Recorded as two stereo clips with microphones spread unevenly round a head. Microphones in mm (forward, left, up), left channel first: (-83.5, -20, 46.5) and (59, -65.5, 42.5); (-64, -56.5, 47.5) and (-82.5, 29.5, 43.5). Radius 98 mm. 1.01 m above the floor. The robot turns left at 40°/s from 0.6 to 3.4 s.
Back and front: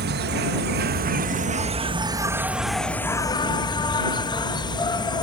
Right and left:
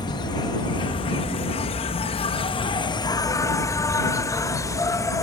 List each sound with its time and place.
0.0 s an insect: 20° right; by 5.2 s 135° right